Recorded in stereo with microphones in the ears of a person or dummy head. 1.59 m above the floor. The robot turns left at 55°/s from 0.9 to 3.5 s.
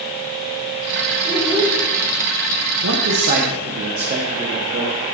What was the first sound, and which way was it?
A child speaking, 10° left (ahead or behind).